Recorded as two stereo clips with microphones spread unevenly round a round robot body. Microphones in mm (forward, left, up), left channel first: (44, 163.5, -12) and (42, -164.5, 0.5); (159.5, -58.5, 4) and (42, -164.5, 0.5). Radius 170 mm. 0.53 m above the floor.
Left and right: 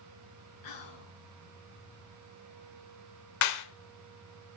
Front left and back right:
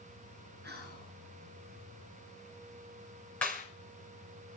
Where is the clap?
130° left, 1.3 m.